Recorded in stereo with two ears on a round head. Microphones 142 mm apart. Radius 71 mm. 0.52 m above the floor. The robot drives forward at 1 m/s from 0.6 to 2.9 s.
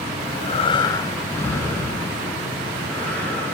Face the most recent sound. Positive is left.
turn(degrees=5)  # may be behind; listen again after turning